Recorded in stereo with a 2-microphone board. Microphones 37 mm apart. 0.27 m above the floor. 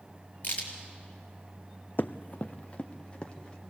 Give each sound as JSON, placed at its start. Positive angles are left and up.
{"t": 0.4, "sound": "a crack", "side_deg": 35, "distance_m": 4.5}
{"t": 2.0, "sound": "running footsteps", "side_deg": 60, "distance_m": 0.5}